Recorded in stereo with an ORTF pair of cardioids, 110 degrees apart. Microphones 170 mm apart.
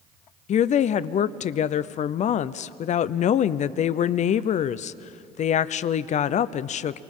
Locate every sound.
0.5 s a woman speaking: 50° left, 0.6 m